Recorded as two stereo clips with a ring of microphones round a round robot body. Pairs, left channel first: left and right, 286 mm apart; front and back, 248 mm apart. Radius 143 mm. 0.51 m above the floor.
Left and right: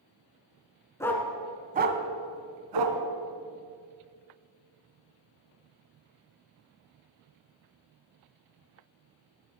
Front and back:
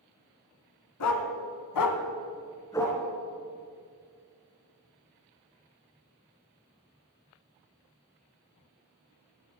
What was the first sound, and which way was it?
A dog barking, 10° left.